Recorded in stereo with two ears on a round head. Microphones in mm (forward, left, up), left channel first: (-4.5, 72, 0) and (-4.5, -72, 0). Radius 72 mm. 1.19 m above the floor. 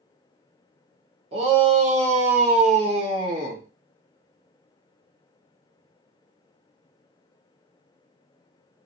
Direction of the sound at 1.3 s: 40° right (ahead or behind).